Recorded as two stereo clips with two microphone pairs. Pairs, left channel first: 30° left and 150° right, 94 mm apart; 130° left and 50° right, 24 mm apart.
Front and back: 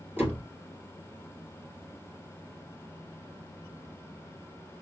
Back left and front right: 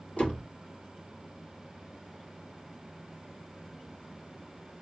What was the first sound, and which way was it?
A door slam, 145° left.